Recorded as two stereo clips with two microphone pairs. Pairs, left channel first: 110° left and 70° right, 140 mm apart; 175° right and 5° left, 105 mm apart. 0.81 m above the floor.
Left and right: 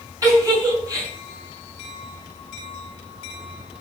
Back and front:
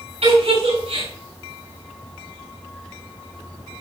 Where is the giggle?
5° right, 7 m.